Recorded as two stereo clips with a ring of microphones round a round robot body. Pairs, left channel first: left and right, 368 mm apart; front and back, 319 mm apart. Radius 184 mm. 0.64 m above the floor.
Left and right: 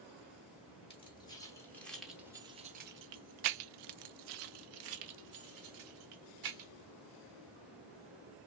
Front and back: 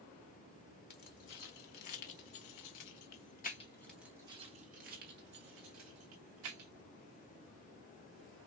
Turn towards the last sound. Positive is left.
turn(degrees=-130)